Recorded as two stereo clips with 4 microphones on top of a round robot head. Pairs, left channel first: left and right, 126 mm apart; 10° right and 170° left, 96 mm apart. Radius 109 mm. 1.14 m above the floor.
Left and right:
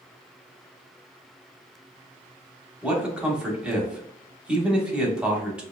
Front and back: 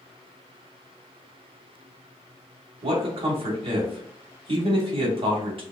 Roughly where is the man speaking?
Behind.